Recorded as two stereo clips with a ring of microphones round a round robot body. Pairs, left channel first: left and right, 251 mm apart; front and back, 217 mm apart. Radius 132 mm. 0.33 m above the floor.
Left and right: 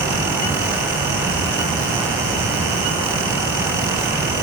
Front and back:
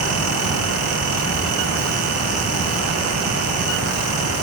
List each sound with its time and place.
Only background noise.